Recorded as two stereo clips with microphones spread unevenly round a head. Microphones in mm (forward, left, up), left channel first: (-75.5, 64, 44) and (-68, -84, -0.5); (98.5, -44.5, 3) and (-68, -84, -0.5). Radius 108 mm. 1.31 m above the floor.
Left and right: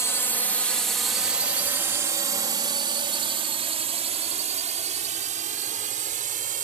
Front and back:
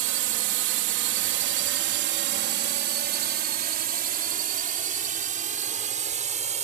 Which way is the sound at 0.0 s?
170° left.